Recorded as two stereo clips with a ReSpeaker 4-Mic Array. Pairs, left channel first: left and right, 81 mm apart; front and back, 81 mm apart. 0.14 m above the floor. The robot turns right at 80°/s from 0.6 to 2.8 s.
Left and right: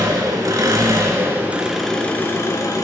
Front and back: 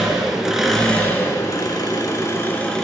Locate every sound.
0.0 s an engine running: 100° right, 0.9 m; by 2.8 s 80° left, 0.9 m